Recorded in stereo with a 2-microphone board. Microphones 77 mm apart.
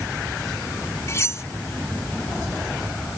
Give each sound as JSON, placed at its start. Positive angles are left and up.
{"t": 1.1, "sound": "cutlery clinking", "side_deg": 35}